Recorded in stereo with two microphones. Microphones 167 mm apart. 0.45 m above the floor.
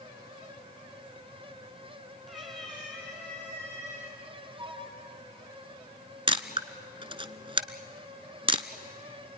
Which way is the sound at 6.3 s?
35° right (ahead or behind).